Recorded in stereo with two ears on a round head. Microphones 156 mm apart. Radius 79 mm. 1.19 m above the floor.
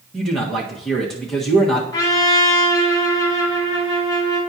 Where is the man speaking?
Centre (ahead or behind), 1.5 m.